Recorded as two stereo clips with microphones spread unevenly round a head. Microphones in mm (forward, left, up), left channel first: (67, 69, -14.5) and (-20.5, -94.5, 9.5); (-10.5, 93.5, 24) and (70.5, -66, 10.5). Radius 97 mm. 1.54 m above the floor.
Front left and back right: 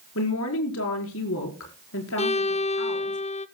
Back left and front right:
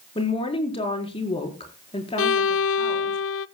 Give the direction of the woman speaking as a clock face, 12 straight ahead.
10 o'clock.